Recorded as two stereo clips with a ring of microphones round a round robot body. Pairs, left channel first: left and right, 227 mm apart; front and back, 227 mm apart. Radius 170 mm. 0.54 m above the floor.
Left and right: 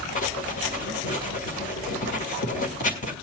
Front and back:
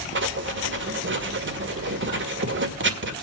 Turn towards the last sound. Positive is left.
turn(degrees=150)